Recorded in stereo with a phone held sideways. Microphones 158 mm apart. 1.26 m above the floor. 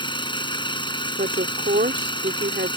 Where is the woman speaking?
85° right.